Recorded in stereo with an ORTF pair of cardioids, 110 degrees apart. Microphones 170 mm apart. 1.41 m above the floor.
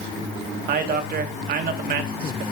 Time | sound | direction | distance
0.7 | a man speaking | 65° right | 2 m